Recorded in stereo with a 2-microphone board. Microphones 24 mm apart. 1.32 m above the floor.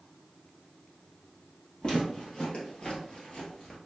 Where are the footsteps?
40° left (ahead or behind), 2 m; by 3.8 s 35° left (ahead or behind), 1.6 m.